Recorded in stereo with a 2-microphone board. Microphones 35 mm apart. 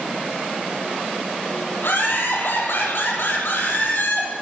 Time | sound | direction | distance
1.8 | laughter | 70° left (ahead or behind) | 7.5 m